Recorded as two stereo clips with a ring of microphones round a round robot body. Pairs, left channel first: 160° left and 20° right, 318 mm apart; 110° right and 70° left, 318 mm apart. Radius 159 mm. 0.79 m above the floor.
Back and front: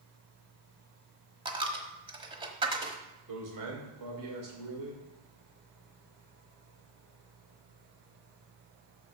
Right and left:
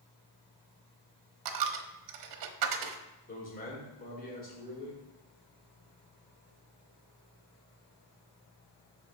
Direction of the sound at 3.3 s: 50° right.